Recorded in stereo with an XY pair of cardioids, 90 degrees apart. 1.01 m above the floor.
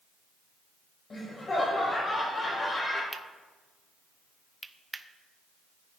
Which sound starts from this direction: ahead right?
Cutlery clinking, at 3.1 s.